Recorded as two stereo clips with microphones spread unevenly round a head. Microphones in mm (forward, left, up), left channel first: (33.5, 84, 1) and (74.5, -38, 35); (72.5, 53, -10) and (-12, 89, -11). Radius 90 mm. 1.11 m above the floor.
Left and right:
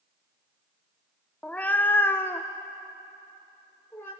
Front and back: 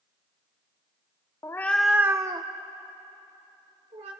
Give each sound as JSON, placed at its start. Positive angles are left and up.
{"t": 1.4, "sound": "a cat meowing", "azimuth_deg": 5, "distance_m": 0.6}